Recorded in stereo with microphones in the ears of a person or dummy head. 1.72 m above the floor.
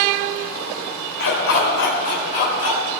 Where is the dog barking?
65° left (ahead or behind), 2.5 m; by 2.8 s 40° left (ahead or behind), 3 m.